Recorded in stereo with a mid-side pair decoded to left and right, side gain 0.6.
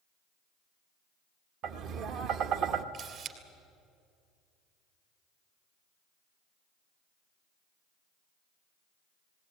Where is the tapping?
65° right, 1.1 m.